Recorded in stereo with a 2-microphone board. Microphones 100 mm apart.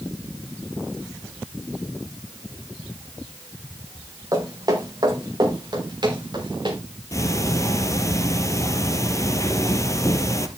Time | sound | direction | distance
4.3 | footsteps | 35° right (ahead or behind) | 4.5 m
7.1 | ticking | 30° left (ahead or behind) | 1.6 m